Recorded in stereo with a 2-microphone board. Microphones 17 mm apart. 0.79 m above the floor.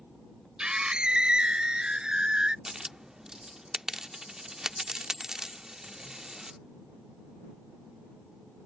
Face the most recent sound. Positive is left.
turn(degrees=-30)  # may be behind; listen again after turning